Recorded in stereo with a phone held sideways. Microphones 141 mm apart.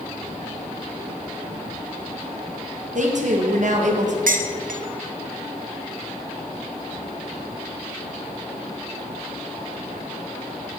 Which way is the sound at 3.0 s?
60° right (ahead or behind).